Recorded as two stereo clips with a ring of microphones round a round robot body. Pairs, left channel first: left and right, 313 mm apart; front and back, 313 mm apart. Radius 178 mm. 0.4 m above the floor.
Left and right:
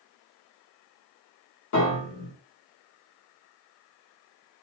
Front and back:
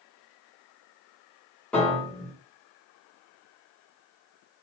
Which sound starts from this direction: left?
A piano, at 1.7 s.